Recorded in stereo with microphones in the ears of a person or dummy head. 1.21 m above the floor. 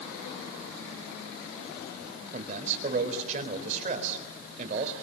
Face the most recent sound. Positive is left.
turn(degrees=-45)  # may be behind; listen again after turning